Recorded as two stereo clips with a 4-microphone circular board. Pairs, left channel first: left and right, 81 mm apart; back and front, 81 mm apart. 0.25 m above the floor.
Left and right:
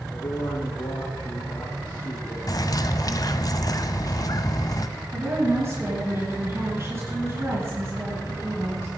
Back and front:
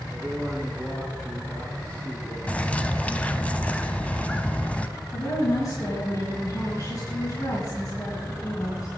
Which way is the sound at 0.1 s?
90° left.